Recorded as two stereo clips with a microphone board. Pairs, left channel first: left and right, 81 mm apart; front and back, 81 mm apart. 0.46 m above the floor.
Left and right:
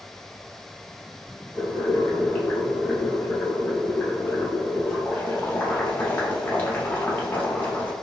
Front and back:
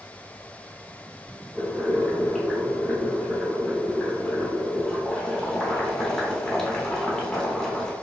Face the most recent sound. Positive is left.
turn(degrees=75)